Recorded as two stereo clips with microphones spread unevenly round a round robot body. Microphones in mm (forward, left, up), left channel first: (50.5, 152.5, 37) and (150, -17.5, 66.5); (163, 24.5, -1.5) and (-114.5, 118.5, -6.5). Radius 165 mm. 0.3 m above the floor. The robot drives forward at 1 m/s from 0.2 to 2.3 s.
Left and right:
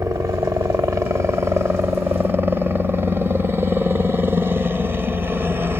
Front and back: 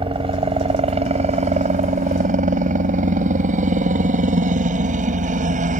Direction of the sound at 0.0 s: 135° right.